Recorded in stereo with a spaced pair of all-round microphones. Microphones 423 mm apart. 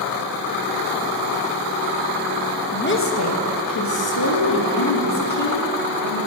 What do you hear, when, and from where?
2.7 s a woman speaking: 20° left (ahead or behind), 1.0 m; by 6.2 s 80° left, 2.5 m